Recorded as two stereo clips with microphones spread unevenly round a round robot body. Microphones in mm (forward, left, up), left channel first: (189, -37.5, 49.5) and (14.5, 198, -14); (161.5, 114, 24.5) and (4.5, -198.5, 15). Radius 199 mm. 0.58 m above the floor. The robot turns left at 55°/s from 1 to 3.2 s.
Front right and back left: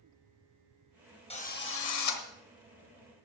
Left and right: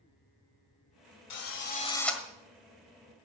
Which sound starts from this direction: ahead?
A drill, at 1.3 s.